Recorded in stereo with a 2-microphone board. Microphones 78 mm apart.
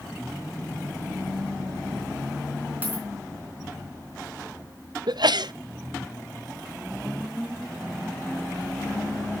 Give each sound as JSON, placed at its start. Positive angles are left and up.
{"t": 2.8, "sound": "a dropped coin", "side_deg": -20, "distance_m": 4.0}
{"t": 5.1, "sound": "a sneeze", "side_deg": -70, "distance_m": 0.8}